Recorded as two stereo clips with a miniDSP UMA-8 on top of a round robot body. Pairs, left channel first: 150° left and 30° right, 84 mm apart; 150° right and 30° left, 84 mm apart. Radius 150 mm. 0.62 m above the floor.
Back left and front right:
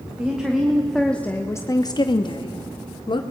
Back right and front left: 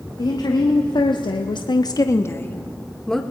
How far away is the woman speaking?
About 2.0 m.